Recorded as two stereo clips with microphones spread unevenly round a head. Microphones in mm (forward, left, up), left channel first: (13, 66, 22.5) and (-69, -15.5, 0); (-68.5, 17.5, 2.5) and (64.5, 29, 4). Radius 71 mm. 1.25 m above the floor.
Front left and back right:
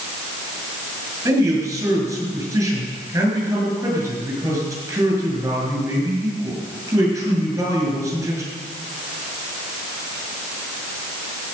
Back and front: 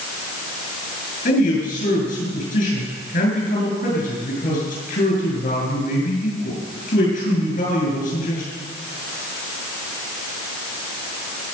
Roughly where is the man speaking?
Behind.